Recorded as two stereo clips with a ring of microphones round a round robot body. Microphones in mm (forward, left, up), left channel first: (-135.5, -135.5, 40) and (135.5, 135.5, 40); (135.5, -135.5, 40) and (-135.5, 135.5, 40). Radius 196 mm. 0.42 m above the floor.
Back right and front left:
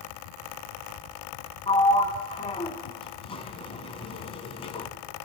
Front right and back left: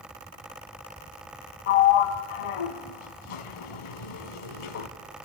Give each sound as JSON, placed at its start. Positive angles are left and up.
{"t": 1.7, "sound": "a sliding door", "azimuth_deg": -55, "distance_m": 1.7}